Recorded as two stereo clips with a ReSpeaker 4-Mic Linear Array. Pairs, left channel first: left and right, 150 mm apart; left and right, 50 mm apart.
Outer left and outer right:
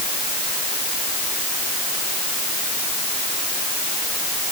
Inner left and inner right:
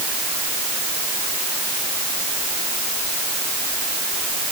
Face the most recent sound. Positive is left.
No sound to turn to.